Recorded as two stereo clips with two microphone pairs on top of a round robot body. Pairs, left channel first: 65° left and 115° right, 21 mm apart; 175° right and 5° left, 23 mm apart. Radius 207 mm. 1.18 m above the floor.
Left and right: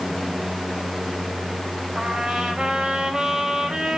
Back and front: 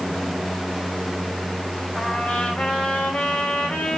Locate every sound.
1.9 s a trumpet: 170° right, 3 m